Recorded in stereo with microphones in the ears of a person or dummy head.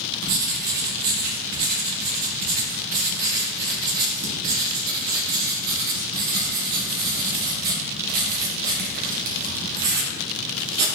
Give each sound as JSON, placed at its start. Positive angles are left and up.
{"t": 0.2, "sound": "writing", "side_deg": -55, "distance_m": 1.3}